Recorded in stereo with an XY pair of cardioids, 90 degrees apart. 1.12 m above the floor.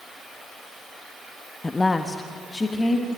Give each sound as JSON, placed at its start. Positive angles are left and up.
{"t": 1.6, "sound": "a woman speaking", "azimuth_deg": 25, "distance_m": 1.0}